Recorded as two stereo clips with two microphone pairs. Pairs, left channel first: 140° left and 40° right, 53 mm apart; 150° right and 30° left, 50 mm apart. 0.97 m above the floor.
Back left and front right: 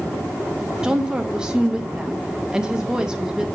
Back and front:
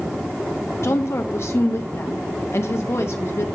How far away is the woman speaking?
About 0.7 m.